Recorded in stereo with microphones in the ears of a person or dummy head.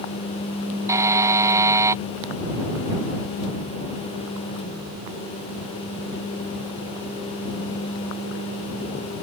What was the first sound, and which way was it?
A buzzer, 10° right (ahead or behind).